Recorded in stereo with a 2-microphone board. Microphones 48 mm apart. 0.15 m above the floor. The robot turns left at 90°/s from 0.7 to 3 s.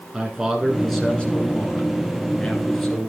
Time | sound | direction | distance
0.1 | a man speaking | 165° right | 2 m